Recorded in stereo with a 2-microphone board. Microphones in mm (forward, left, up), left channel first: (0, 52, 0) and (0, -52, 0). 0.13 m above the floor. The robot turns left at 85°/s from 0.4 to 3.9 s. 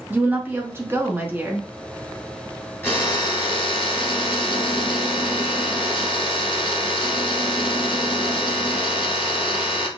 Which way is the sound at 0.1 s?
15° right (ahead or behind).